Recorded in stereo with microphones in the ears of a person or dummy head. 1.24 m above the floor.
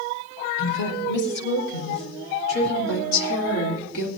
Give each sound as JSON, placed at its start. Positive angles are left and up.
{"t": 0.6, "sound": "a woman speaking", "side_deg": 90, "distance_m": 4.5}